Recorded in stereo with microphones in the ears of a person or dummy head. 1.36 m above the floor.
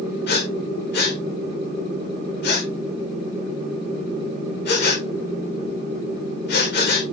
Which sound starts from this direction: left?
Breathing, at 0.3 s.